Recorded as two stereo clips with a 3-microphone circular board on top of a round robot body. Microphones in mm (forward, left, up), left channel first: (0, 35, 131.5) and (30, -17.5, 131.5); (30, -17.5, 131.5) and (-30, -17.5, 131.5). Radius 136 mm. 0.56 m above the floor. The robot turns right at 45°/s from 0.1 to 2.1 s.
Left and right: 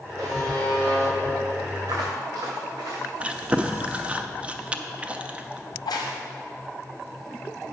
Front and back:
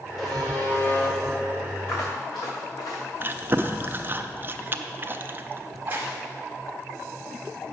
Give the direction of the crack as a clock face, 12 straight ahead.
8 o'clock.